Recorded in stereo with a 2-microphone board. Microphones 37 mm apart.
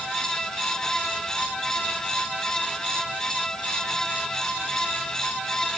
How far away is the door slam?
No door slam in this recording.